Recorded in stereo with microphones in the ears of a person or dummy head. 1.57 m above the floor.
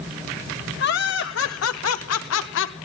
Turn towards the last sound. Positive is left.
turn(degrees=70)  # may be behind; listen again after turning